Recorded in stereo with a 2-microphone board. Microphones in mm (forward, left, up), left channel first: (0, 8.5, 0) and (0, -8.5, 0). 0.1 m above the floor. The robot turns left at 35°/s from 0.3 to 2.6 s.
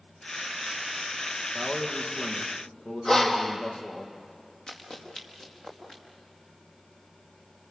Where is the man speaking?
100° left, 4 m; by 4.0 s 65° left, 4 m.